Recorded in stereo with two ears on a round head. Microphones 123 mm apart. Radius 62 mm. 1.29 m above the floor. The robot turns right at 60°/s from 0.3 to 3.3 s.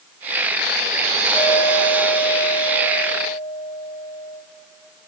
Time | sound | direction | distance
1.3 | a clink | 10° left | 6.5 m